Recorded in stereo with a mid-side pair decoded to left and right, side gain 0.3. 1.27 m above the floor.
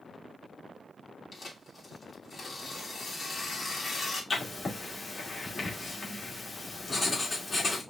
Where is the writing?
45° left, 2 m.